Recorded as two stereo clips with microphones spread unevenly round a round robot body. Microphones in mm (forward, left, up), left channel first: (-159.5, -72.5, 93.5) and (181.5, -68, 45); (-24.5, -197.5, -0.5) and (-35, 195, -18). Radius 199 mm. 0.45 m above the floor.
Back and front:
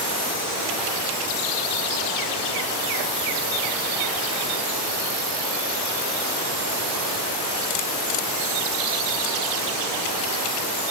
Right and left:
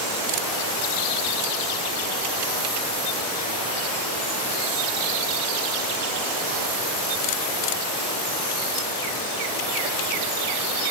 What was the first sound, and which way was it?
Only background noise.